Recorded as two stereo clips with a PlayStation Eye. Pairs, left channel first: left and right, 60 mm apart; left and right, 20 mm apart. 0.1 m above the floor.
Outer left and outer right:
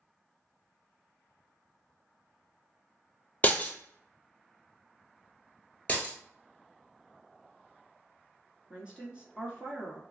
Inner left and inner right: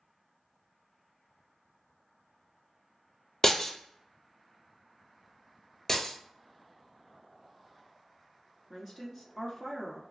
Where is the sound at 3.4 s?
30° left (ahead or behind), 0.5 m.